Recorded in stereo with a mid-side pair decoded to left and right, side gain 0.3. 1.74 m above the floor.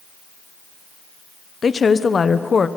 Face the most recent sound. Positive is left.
turn(degrees=55)